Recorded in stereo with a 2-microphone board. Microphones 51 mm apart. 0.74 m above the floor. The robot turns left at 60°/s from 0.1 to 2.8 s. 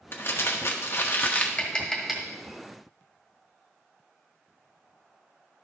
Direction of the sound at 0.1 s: 120° left.